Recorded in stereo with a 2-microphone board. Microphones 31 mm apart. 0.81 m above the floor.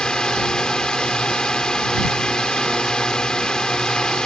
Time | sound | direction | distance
0.0 | a drone | 25° left (ahead or behind) | ?